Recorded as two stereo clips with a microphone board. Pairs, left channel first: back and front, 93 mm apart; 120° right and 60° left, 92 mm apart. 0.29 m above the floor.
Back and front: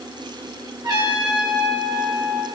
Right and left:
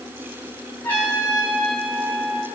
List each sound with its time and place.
0.8 s a trumpet: 50° right, 8.5 m